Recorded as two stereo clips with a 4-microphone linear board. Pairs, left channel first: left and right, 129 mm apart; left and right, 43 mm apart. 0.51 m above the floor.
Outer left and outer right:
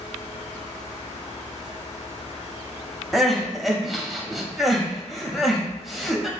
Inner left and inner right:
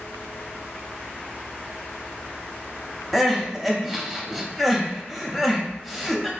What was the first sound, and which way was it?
Crying, centre (ahead or behind).